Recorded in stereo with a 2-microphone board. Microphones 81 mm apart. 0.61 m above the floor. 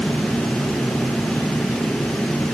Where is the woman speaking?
I don't hear a woman speaking.